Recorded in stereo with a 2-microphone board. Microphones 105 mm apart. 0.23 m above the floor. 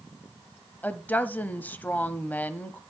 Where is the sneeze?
No sneeze in this recording.